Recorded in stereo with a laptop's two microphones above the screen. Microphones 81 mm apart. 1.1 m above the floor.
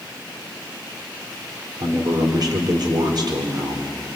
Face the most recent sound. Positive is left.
turn(degrees=-60)  # may be behind; listen again after turning